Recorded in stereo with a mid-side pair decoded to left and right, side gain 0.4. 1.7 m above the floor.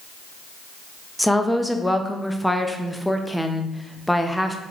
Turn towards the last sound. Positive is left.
turn(degrees=5)